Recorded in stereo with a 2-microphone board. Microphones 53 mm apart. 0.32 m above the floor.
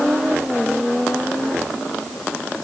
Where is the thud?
No thud in this recording.